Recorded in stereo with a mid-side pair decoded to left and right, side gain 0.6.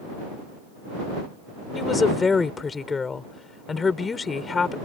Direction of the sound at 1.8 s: 25° left.